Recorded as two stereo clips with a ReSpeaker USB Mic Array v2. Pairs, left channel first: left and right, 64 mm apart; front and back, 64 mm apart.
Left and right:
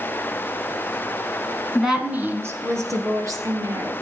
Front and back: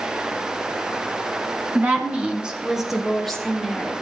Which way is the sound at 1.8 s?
Straight behind.